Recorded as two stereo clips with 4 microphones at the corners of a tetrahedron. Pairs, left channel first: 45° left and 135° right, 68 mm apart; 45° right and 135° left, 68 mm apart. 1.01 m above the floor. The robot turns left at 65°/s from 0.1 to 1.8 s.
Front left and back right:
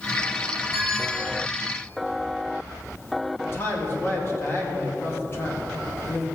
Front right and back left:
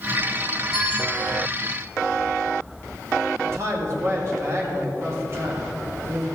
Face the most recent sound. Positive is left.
turn(degrees=90)